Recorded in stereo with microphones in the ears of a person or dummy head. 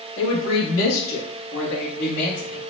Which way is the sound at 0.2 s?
85° left.